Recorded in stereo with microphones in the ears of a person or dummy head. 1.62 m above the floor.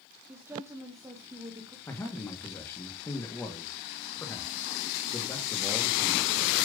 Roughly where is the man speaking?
Centre.